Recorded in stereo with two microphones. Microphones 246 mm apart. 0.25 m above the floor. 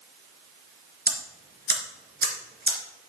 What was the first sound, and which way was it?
Ticking, 40° right (ahead or behind).